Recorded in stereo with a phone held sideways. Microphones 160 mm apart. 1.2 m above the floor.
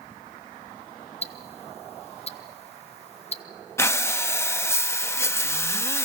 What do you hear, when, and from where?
1.2 s ticking: 40° left (ahead or behind), 0.7 m
3.8 s breathing: 15° left (ahead or behind), 0.6 m